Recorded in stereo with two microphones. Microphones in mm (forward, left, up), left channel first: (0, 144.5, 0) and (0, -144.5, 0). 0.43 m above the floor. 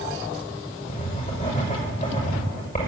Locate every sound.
0.9 s writing: 30° left (ahead or behind), 6 m